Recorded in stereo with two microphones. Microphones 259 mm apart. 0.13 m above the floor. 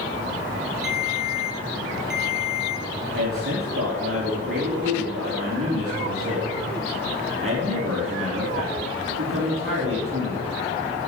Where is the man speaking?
55° right (ahead or behind), 4 m.